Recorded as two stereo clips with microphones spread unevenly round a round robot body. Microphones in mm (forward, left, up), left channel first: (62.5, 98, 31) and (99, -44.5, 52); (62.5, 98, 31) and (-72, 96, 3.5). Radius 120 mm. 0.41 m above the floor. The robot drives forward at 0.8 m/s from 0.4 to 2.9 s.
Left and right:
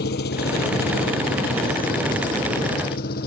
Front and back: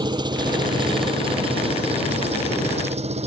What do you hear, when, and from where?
0.0 s an engine running: 120° left; by 3.3 s 140° left